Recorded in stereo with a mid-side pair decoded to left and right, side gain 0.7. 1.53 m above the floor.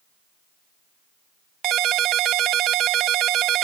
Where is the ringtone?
50° right.